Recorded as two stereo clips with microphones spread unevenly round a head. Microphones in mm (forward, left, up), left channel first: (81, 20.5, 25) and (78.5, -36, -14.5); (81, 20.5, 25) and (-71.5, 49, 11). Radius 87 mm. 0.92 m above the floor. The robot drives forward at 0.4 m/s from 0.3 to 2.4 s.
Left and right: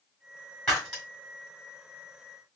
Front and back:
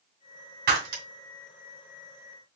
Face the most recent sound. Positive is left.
turn(degrees=160)